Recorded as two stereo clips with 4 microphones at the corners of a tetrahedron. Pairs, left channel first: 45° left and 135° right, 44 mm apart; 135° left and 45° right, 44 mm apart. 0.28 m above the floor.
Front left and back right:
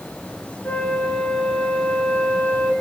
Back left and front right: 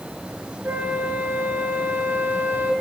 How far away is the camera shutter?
I don't hear a camera shutter.